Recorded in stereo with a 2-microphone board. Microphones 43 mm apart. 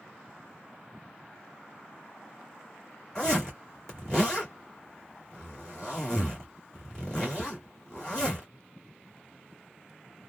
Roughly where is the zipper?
Centre.